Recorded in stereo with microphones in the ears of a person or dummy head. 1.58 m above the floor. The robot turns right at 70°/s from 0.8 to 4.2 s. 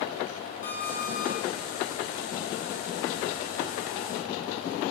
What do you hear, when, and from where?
0.6 s an alarm clock: 50° left, 1.6 m; by 1.4 s 90° left, 1.6 m